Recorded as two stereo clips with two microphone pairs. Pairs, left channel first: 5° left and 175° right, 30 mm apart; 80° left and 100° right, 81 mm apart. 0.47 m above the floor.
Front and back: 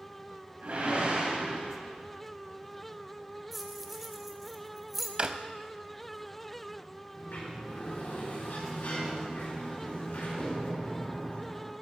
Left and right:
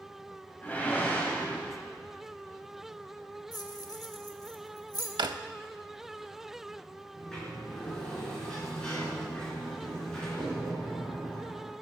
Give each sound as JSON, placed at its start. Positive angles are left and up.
{"t": 0.6, "sound": "a whoosh", "azimuth_deg": 150, "distance_m": 2.5}
{"t": 3.5, "sound": "keys jangling", "azimuth_deg": 100, "distance_m": 1.0}
{"t": 5.2, "sound": "a drawer", "azimuth_deg": -125, "distance_m": 0.5}
{"t": 7.2, "sound": "a sliding door", "azimuth_deg": 0, "distance_m": 5.0}